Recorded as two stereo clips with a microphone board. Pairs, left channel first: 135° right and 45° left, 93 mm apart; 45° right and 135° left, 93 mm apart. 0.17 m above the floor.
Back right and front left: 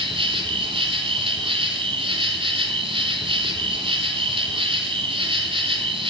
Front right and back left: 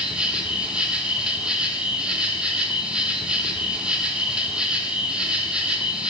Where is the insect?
55° left, 0.7 m.